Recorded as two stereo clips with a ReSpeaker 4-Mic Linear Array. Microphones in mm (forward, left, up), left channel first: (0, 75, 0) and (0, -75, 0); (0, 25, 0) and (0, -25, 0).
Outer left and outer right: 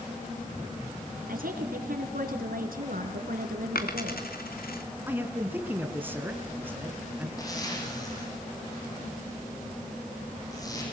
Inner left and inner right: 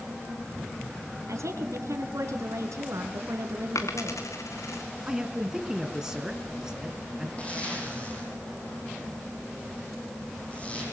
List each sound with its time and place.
1.3 s a woman speaking: 75° right (ahead or behind), 3.5 m
3.8 s a dropped coin: 85° left, 2.0 m
5.1 s a man speaking: 15° right (ahead or behind), 3 m
7.4 s a zipper: 25° left (ahead or behind), 8 m